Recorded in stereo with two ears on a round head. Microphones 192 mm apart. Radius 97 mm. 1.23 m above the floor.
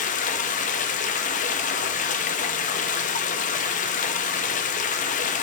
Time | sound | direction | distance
0.0 | running water | 35° left (ahead or behind) | 0.7 m